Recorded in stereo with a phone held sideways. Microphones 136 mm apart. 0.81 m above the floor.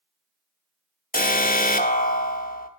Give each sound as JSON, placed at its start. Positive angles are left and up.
{"t": 1.1, "sound": "an alarm", "side_deg": 85, "distance_m": 0.7}